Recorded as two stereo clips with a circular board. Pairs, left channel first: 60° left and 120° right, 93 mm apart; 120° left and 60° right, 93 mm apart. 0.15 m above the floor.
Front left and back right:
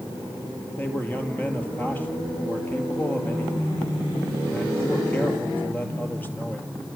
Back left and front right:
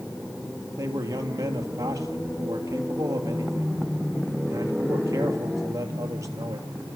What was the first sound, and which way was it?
A man speaking, 10° right.